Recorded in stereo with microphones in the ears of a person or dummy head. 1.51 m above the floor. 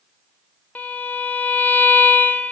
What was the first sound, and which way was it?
A violin, 5° left (ahead or behind).